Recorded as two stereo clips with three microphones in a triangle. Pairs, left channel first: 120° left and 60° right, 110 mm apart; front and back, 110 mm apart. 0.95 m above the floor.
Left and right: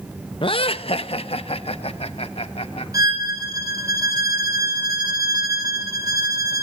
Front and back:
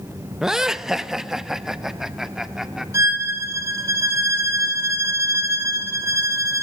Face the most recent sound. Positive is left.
turn(degrees=-115)